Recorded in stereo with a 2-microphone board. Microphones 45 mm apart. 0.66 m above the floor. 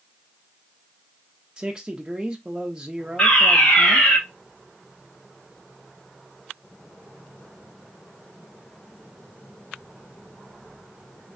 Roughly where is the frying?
No frying in this recording.